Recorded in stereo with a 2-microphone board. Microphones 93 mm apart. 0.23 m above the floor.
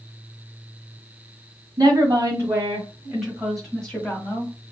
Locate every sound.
1.8 s a woman speaking: 35° right (ahead or behind), 1.8 m; by 4.5 s 25° left (ahead or behind), 1.6 m